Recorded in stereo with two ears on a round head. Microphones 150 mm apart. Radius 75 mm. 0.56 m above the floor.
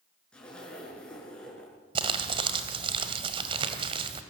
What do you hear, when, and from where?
0.3 s a zipper: 5° left (ahead or behind), 6.5 m
1.9 s crumpling: 30° right (ahead or behind), 2.0 m